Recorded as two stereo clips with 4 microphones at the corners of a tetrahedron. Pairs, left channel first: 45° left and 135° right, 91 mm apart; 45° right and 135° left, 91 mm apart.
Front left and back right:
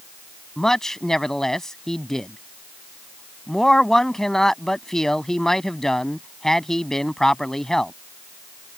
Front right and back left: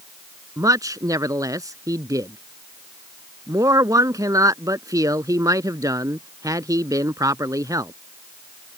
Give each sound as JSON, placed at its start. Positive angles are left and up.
{"t": 0.6, "sound": "a man speaking", "azimuth_deg": 125}